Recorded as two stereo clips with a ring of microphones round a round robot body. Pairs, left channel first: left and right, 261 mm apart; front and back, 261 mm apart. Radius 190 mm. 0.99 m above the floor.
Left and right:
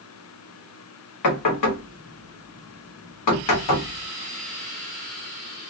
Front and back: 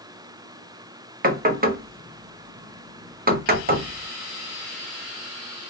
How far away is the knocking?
About 0.9 m.